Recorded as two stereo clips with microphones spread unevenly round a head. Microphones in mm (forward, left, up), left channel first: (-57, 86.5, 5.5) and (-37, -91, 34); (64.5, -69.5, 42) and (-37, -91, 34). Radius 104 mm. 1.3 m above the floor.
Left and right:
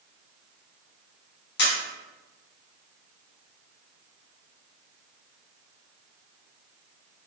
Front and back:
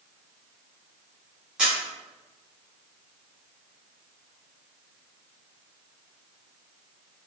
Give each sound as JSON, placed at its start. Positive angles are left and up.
{"t": 1.6, "sound": "a camera shutter", "azimuth_deg": 105, "distance_m": 0.8}